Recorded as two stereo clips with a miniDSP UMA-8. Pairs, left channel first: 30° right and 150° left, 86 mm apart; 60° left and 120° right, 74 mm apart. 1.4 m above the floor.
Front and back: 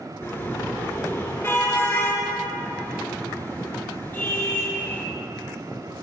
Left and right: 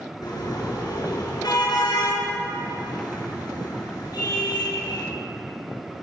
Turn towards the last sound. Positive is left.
turn(degrees=30)